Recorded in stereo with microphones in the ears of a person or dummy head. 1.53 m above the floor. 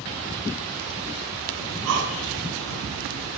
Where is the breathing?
85° right, 6.5 m.